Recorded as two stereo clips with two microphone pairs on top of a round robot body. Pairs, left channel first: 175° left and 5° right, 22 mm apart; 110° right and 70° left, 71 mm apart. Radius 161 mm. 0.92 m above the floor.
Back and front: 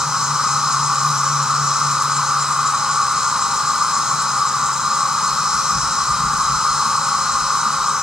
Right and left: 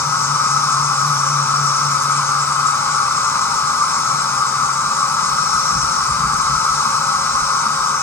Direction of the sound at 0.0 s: 55° right.